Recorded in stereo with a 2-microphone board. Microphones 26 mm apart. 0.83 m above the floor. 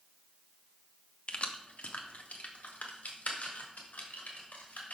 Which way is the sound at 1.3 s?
45° left (ahead or behind).